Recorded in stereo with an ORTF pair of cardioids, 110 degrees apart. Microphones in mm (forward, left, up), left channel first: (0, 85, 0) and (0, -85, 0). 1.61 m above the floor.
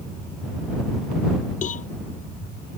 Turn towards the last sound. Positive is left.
turn(degrees=50)